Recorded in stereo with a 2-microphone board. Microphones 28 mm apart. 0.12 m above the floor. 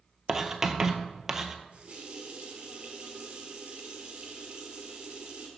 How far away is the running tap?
About 1.6 m.